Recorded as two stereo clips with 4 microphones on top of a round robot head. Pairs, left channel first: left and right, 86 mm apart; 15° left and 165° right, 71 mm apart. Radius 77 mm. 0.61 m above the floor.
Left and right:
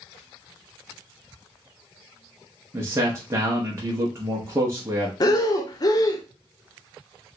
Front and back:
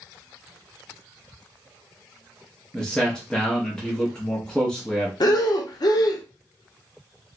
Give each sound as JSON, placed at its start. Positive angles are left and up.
{"t": 2.7, "sound": "a man speaking", "azimuth_deg": -55, "distance_m": 0.8}
{"t": 5.2, "sound": "breathing", "azimuth_deg": 45, "distance_m": 0.6}